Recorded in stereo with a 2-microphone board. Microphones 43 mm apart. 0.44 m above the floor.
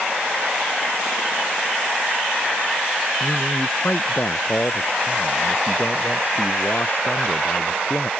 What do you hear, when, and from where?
3.2 s a man speaking: 50° left (ahead or behind)